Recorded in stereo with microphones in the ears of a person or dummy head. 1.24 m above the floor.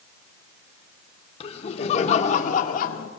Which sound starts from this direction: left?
Laughter, at 1.4 s.